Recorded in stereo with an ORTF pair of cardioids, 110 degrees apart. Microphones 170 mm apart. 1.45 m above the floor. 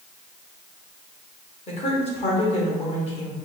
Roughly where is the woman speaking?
Ahead left.